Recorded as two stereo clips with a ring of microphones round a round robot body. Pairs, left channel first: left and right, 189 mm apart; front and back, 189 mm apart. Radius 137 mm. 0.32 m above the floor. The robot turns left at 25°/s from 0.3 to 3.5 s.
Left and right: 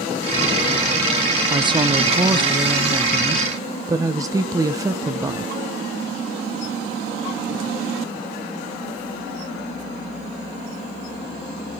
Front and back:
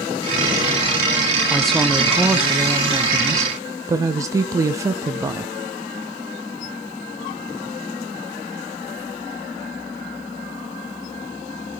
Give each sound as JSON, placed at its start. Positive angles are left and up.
{"t": 1.5, "sound": "a woman speaking", "azimuth_deg": -80, "distance_m": 1.0}